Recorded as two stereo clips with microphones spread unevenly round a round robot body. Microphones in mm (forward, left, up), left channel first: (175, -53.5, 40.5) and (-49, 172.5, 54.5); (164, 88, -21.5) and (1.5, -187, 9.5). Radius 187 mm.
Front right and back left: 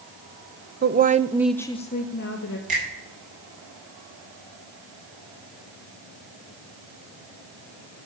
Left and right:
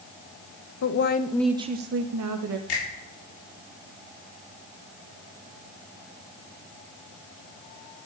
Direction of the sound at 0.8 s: 80° left.